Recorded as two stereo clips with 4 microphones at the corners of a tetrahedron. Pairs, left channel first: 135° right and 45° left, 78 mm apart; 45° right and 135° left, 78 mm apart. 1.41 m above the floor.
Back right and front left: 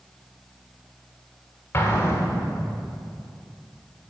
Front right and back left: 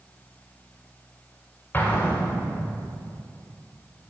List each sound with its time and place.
1.7 s an explosion: 95° right, 1.4 m